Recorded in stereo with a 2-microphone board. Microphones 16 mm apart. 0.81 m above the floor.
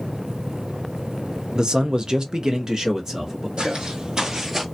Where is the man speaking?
50° right (ahead or behind), 0.6 m; by 3.5 s 35° right (ahead or behind), 1.2 m.